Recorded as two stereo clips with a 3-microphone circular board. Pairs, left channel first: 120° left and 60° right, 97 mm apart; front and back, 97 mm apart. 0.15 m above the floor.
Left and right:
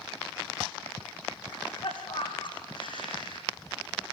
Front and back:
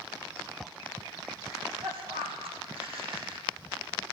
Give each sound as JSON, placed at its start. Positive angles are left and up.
{"t": 1.5, "sound": "a cough", "azimuth_deg": 155, "distance_m": 7.0}